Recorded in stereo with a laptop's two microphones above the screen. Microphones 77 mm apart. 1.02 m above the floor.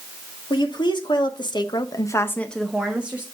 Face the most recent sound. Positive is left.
turn(degrees=-20)  # may be behind; listen again after turning